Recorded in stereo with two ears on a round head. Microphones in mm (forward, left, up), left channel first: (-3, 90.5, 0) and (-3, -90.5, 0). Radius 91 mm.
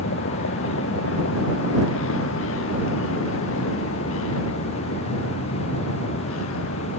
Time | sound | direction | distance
0.0 | a vehicle | 65° left (ahead or behind) | ?